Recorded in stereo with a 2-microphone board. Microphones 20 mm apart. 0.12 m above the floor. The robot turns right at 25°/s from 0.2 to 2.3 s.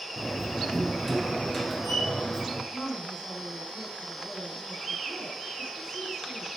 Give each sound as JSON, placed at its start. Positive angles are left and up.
{"t": 0.2, "sound": "a door slam", "azimuth_deg": -10, "distance_m": 1.6}
{"t": 2.7, "sound": "a woman speaking", "side_deg": 30, "distance_m": 4.0}